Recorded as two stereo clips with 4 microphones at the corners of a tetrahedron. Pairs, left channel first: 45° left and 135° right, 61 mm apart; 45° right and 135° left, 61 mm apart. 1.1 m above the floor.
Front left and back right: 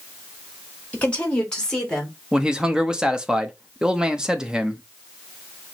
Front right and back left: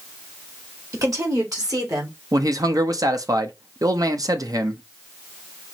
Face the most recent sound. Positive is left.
turn(degrees=150)